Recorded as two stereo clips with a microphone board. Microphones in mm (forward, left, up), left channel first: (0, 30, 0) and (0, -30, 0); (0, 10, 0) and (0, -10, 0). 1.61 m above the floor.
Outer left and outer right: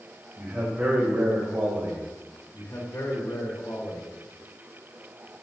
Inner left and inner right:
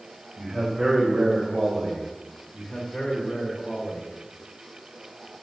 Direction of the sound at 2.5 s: 60° left (ahead or behind).